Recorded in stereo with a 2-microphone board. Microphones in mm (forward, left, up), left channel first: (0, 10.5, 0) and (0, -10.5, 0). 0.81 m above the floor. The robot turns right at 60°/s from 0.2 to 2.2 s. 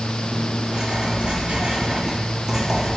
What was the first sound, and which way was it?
Writing, 135° right.